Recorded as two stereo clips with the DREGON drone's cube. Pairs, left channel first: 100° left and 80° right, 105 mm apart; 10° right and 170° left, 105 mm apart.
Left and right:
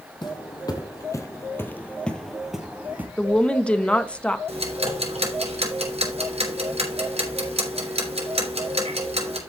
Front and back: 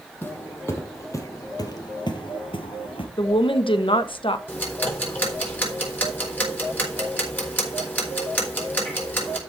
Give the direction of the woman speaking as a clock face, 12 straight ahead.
11 o'clock.